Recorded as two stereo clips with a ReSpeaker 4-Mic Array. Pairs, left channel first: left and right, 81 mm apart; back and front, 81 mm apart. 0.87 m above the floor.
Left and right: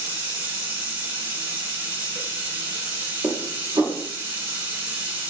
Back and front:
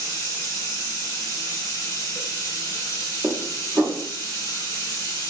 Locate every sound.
0.0 s running water: 150° right, 0.8 m
3.2 s dishes clattering: 60° right, 0.7 m